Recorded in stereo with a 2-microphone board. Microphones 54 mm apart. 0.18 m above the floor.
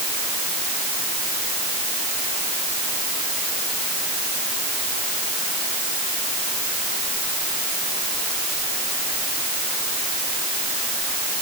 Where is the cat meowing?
I don't hear a cat meowing.